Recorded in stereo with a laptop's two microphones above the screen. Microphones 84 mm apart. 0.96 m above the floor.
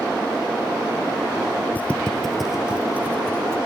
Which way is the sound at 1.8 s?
20° left (ahead or behind).